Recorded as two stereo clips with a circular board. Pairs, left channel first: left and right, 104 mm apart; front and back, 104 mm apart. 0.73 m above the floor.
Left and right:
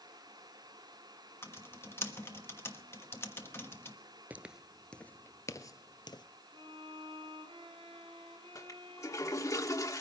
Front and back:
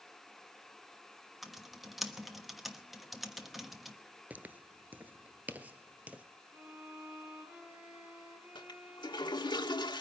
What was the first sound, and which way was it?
Typing on a keyboard, 95° left.